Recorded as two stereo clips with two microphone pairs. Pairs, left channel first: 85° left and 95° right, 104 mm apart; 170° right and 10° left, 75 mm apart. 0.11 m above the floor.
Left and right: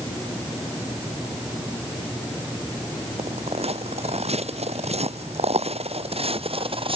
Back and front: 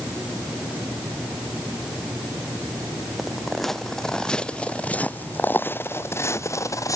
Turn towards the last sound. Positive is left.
turn(degrees=-125)